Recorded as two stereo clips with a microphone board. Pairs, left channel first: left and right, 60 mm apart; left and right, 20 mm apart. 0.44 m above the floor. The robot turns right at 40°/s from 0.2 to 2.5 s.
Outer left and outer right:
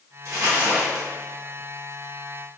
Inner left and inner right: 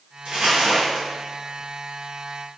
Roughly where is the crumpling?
Right.